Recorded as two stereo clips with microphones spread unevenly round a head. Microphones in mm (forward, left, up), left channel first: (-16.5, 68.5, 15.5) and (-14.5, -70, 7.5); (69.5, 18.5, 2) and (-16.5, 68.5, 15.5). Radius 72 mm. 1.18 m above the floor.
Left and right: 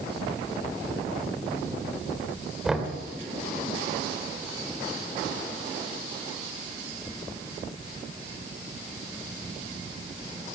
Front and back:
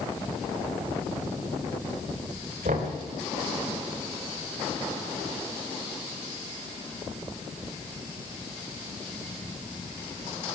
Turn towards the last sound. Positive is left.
turn(degrees=-175)